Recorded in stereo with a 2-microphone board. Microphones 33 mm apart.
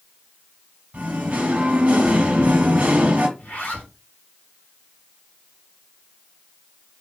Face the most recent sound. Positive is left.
turn(degrees=55)  # may be behind; listen again after turning